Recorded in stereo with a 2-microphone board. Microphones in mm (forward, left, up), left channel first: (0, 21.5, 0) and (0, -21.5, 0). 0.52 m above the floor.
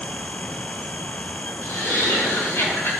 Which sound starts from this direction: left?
Laughter, at 1.6 s.